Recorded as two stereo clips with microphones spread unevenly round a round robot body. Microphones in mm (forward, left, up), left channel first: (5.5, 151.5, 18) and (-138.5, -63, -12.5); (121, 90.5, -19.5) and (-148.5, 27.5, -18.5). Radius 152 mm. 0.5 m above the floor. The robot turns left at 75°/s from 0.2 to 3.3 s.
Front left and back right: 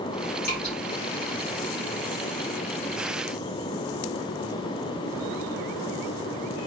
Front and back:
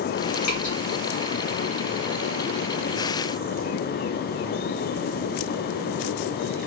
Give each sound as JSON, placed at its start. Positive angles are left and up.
{"t": 0.4, "sound": "dripping", "azimuth_deg": 0, "distance_m": 1.8}